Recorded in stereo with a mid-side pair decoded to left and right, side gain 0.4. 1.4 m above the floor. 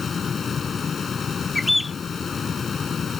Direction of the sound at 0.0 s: 45° left.